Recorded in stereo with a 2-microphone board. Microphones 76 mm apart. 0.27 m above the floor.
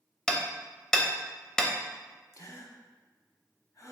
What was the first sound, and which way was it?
Hammering, 10° left (ahead or behind).